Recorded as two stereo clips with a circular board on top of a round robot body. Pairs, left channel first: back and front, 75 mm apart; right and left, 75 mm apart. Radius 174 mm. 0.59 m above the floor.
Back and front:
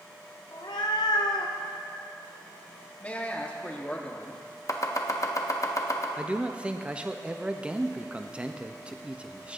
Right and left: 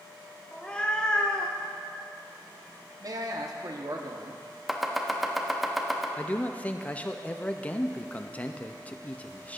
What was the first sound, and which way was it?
A cat meowing, 165° right.